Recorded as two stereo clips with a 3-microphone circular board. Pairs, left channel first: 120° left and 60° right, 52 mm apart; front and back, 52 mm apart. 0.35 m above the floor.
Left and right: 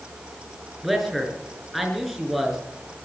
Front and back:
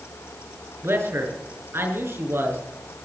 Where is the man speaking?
150° right, 5.5 m.